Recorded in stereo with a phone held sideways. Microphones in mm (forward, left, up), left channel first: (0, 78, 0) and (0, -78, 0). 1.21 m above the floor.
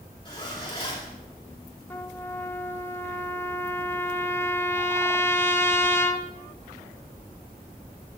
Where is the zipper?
30° left (ahead or behind), 2.5 m.